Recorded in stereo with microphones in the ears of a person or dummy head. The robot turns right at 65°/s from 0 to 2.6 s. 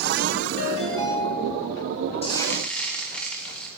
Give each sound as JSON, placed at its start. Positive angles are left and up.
{"t": 0.6, "sound": "a ringtone", "azimuth_deg": 125, "distance_m": 3.0}
{"t": 2.2, "sound": "frying", "side_deg": 30, "distance_m": 1.9}